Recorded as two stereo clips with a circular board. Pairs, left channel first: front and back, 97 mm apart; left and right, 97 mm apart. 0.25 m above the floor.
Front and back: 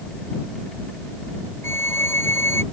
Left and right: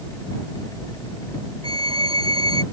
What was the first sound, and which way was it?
A violin, 65° right.